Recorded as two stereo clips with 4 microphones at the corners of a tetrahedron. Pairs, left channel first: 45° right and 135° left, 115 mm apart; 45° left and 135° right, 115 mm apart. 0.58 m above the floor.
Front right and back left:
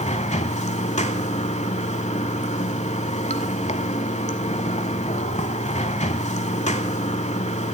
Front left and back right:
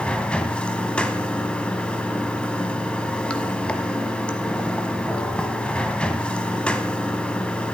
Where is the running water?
35° right, 0.9 m.